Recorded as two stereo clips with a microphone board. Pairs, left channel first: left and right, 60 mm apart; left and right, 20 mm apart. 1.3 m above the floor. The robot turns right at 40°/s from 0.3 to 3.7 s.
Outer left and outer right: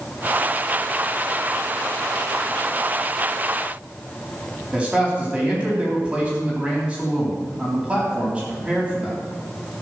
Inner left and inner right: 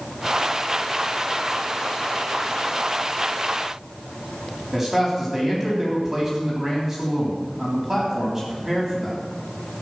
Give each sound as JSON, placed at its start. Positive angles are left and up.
{"t": 4.7, "sound": "a man speaking", "side_deg": -20, "distance_m": 3.5}